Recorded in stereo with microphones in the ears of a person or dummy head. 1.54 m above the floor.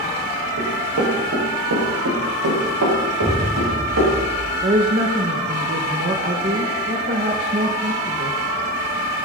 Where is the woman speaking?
35° right (ahead or behind), 1.3 m.